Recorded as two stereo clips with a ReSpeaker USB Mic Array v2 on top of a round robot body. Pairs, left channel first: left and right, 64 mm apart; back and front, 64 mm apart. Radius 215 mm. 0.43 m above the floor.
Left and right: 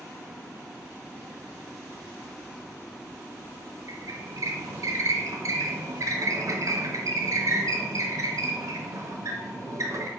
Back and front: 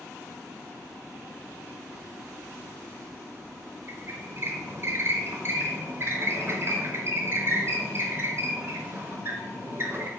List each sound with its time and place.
3.9 s a squeak: 50° right, 0.5 m